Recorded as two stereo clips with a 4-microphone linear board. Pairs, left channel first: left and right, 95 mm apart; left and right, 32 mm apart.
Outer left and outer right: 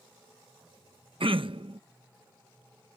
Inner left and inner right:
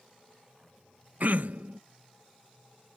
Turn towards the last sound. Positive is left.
turn(degrees=-60)  # may be behind; listen again after turning